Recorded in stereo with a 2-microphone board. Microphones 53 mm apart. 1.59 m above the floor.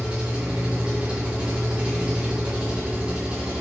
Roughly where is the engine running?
Centre.